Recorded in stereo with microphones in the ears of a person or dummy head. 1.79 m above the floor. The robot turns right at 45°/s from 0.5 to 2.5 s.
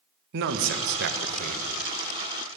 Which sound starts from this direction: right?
A man speaking, at 0.3 s.